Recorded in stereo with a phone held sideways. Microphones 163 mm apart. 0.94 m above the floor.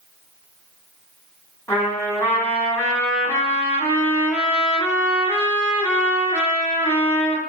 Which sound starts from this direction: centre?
A trumpet, at 1.7 s.